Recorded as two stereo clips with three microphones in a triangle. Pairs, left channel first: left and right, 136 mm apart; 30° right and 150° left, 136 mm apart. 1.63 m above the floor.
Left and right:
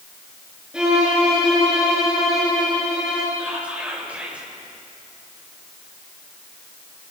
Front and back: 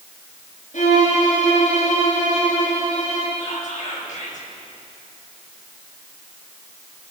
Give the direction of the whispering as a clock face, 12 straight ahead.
12 o'clock.